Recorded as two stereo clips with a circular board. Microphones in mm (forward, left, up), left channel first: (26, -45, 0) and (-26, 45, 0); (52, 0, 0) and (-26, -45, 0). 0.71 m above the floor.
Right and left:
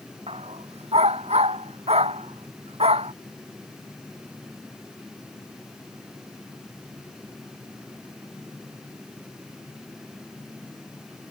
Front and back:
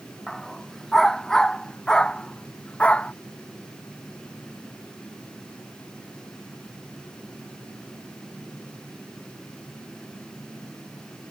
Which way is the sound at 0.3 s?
120° left.